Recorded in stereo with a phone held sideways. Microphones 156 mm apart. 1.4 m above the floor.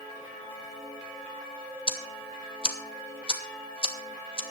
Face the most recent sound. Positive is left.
turn(degrees=35)  # may be behind; listen again after turning